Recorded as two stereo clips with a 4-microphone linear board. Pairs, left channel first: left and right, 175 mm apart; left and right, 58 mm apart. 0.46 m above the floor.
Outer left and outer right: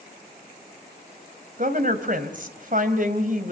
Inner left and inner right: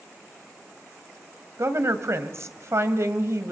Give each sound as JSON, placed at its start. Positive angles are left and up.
{"t": 1.6, "sound": "a woman speaking", "side_deg": -55, "distance_m": 2.5}